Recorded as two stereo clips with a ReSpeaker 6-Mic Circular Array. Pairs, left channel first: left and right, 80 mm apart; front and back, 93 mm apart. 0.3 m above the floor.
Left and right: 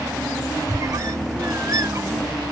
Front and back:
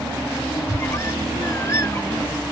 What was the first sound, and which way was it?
A squeak, 55° right.